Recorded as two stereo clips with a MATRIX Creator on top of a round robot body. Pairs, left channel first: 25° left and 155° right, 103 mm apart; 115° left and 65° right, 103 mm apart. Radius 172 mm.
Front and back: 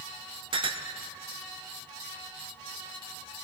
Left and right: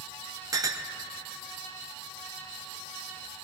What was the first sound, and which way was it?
A clink, 120° right.